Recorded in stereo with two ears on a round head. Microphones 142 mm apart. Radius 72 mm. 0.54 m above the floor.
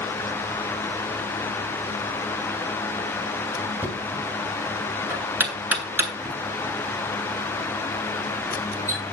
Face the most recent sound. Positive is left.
turn(degrees=-10)  # may be behind; listen again after turning